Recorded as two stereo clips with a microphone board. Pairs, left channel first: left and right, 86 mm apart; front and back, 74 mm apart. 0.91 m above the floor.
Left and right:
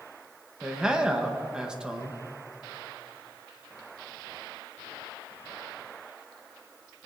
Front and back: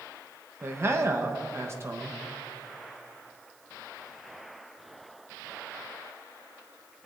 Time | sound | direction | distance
0.6 | a man speaking | 165° right | 0.9 m